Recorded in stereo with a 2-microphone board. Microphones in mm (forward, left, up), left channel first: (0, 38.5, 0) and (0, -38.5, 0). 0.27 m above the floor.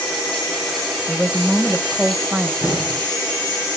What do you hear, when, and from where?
1.1 s a woman speaking: 15° right (ahead or behind), 0.9 m
2.6 s an explosion: 10° right (ahead or behind), 7 m